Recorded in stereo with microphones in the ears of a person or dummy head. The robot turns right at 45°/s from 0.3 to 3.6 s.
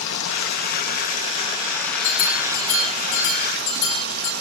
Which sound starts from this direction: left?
Running water, at 0.0 s.